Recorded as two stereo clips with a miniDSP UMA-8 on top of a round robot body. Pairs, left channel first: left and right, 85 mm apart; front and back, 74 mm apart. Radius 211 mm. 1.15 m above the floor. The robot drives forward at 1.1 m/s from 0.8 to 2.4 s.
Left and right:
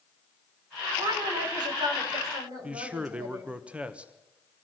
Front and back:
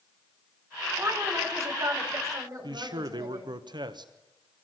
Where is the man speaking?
165° right, 1.4 m.